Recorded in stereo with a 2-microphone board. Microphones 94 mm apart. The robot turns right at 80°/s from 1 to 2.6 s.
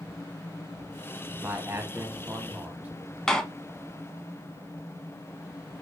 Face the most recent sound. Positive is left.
turn(degrees=5)  # may be behind; listen again after turning